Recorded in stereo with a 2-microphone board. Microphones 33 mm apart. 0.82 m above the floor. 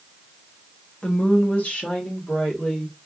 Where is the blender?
No blender in this recording.